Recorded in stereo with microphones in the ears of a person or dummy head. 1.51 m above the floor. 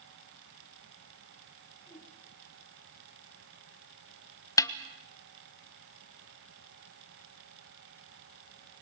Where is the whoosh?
10° left (ahead or behind), 9 m.